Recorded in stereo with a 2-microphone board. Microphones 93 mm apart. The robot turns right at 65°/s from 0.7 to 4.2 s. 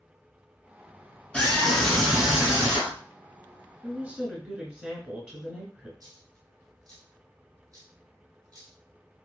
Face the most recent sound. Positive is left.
turn(degrees=-45)  # may be behind; listen again after turning